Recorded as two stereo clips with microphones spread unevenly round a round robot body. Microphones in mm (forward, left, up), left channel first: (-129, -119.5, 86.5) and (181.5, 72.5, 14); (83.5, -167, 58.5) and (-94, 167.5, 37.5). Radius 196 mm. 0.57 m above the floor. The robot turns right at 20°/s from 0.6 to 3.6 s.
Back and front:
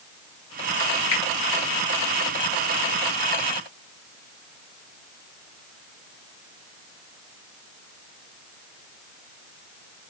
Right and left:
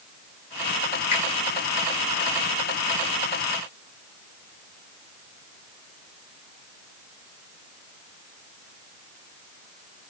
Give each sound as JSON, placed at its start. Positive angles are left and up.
{"t": 1.1, "sound": "a finger snap", "azimuth_deg": -110, "distance_m": 1.8}